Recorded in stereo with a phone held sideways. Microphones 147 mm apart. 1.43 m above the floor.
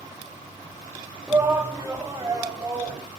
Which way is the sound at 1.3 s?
15° right (ahead or behind).